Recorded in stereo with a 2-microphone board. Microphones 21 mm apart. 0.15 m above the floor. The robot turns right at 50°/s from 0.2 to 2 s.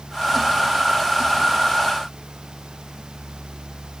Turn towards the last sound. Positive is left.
No sound to turn to.